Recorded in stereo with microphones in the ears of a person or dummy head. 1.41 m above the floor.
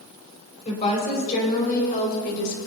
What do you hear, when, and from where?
0.7 s a woman speaking: 40° left (ahead or behind), 5.5 m; by 2.6 s 65° left (ahead or behind), 5 m